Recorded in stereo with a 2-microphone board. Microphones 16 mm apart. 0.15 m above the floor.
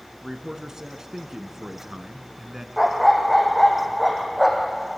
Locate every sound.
0.2 s a man speaking: 35° right (ahead or behind), 1.4 m
2.8 s a dog barking: centre (ahead or behind), 3 m